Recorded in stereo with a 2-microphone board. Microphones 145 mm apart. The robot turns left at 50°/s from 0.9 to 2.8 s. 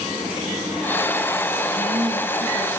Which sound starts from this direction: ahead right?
A woman speaking, at 1.7 s.